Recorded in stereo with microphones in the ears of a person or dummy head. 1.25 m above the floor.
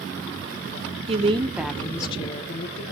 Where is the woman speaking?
35° right (ahead or behind), 0.6 m; by 2.9 s 50° left (ahead or behind), 1.0 m.